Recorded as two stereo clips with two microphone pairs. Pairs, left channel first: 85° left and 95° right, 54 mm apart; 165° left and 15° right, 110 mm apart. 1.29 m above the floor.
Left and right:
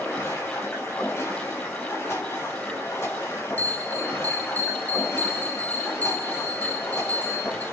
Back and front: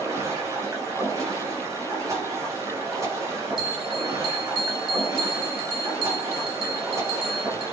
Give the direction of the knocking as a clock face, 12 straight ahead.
I don't hear knocking.